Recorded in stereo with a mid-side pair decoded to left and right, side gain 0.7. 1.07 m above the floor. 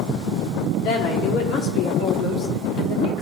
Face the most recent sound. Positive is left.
turn(degrees=65)